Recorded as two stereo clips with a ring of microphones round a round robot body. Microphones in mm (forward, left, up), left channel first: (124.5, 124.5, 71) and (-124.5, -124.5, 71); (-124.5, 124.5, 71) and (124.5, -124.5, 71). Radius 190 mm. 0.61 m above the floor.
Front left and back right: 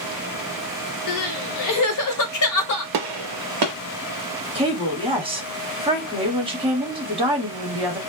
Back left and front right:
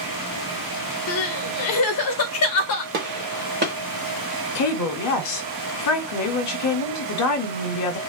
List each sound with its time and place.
1.1 s crying: 85° left, 0.5 m
2.9 s a gunshot: 110° right, 0.6 m
4.5 s a woman speaking: 155° left, 1.0 m